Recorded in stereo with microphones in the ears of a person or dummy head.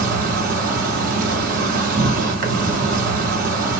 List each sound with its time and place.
0.0 s an insect: 55° right (ahead or behind), 1.1 m